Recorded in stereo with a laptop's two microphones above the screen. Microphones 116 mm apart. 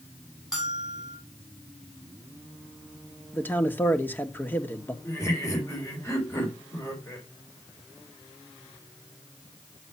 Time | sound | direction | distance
0.5 | a bell | 5° right (ahead or behind) | 3 m
3.3 | a man speaking | 15° left (ahead or behind) | 1.9 m
5.0 | laughter | 25° left (ahead or behind) | 4 m